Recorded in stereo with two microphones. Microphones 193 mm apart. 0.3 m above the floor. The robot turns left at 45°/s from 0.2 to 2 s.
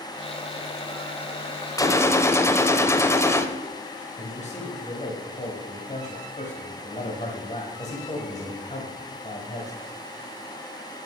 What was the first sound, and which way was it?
A gunshot, 15° left (ahead or behind).